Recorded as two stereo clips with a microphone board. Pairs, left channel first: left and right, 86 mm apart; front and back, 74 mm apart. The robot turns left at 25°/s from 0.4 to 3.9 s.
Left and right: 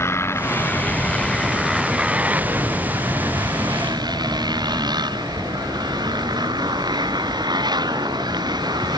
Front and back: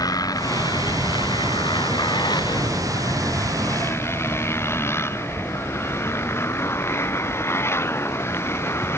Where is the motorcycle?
30° left; by 9.0 s 55° right.